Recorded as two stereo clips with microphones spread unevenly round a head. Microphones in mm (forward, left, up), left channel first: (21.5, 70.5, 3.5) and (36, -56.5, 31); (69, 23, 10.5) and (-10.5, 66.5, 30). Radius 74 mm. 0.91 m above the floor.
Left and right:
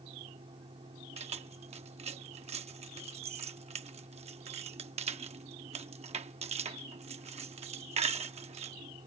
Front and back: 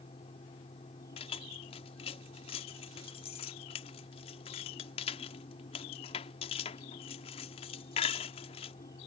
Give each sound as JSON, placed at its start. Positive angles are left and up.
{"t": 0.0, "sound": "a fan", "azimuth_deg": -40}
{"t": 1.2, "sound": "keys jangling", "azimuth_deg": -45}